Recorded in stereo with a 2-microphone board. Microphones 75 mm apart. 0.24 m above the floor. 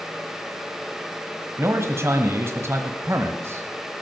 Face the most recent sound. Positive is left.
turn(degrees=-35)  # may be behind; listen again after turning